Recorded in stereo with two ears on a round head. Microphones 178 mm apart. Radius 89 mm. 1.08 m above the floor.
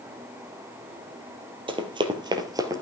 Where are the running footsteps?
25° right (ahead or behind), 1.9 m; by 2.8 s 15° right (ahead or behind), 1.5 m.